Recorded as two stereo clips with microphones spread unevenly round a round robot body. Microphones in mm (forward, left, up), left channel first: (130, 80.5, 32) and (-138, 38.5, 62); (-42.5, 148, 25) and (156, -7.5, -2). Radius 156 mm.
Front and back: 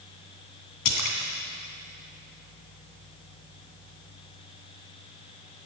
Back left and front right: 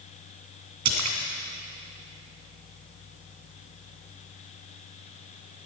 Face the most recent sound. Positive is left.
turn(degrees=-25)